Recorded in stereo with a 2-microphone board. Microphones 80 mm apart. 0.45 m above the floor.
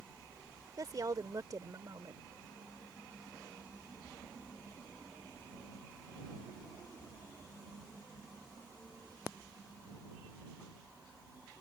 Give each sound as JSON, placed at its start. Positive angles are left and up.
{"t": 0.8, "sound": "a woman speaking", "side_deg": -50}